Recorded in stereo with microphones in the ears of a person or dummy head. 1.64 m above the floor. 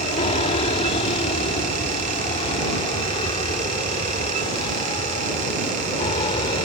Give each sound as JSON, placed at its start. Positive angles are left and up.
{"t": 0.0, "sound": "an aircraft", "side_deg": 30}